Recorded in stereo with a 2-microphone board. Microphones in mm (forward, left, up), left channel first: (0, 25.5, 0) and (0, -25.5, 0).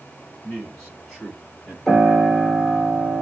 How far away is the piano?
About 1.5 m.